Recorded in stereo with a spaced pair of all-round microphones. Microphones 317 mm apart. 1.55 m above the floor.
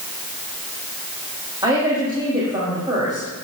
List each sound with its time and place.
1.6 s a woman speaking: 15° right (ahead or behind), 4 m